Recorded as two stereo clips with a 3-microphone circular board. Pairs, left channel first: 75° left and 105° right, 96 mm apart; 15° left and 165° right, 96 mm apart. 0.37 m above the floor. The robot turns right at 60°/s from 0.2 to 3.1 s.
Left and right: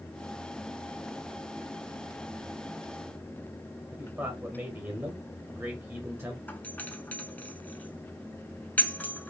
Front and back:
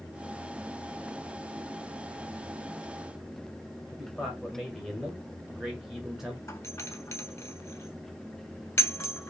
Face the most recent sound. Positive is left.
turn(degrees=25)